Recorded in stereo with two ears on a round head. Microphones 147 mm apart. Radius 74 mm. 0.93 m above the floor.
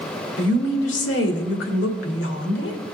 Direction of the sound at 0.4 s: 85° left.